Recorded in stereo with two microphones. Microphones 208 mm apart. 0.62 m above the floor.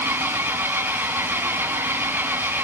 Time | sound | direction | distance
0.0 | an engine running | 10° right (ahead or behind) | 1.6 m